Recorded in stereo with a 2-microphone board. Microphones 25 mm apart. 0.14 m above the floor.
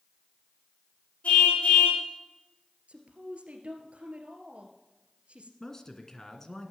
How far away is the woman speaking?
About 2.5 m.